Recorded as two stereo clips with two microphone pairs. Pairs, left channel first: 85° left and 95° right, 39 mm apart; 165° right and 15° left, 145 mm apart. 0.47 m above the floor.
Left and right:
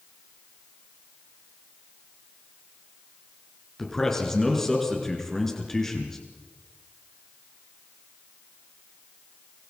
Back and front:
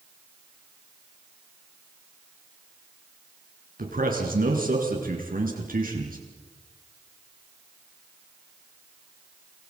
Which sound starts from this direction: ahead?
A man speaking, at 3.8 s.